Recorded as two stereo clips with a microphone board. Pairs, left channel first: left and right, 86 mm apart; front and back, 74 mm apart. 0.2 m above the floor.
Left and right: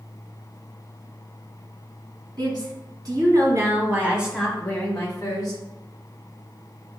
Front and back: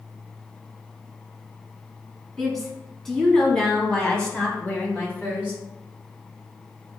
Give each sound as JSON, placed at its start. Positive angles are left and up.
{"t": 2.4, "sound": "a woman speaking", "azimuth_deg": -85, "distance_m": 1.9}